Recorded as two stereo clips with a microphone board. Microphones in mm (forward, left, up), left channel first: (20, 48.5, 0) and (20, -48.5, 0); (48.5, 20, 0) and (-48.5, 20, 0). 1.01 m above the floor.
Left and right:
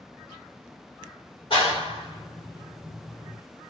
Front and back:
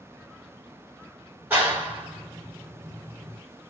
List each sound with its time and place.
1.5 s a clap: 110° left, 1.9 m